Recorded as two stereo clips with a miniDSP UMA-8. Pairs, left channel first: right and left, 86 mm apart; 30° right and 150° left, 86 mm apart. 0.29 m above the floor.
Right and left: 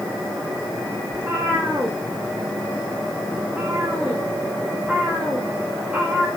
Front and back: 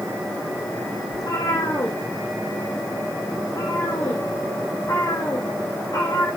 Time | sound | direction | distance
1.1 | a cat meowing | 15° left | 6.5 m